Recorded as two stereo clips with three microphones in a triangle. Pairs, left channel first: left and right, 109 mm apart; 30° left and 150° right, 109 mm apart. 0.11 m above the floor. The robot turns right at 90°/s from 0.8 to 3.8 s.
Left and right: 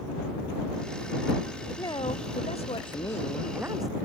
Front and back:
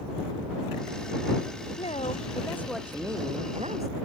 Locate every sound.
1.8 s a woman speaking: 30° left; by 3.9 s 145° right